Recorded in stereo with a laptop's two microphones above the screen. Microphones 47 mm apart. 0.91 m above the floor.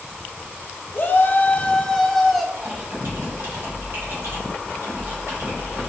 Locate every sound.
0.9 s a shout: 45° left (ahead or behind), 0.7 m; by 2.4 s centre (ahead or behind), 1.4 m
2.5 s typing on a keyboard: 50° right (ahead or behind), 2 m